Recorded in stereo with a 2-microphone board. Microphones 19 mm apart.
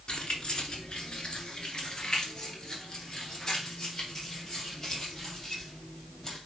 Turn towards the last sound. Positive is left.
turn(degrees=35)  # may be behind; listen again after turning